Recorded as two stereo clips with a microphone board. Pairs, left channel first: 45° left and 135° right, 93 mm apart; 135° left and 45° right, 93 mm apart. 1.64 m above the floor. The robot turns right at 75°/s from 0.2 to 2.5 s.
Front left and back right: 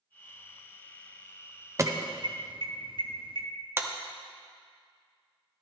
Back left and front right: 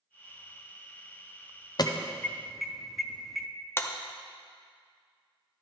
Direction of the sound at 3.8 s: Straight behind.